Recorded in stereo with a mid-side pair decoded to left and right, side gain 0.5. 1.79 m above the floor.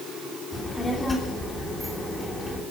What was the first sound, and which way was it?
A child speaking, 15° left.